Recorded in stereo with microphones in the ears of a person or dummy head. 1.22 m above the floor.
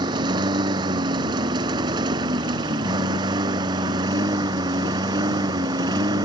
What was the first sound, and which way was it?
A lawn mower, 20° right (ahead or behind).